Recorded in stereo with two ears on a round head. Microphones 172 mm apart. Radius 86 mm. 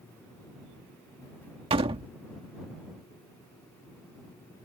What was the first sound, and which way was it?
A door slam, 25° right (ahead or behind).